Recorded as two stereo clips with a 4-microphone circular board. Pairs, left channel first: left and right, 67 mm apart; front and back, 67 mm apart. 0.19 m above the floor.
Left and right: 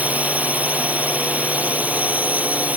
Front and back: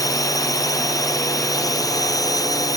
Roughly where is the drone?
Ahead right.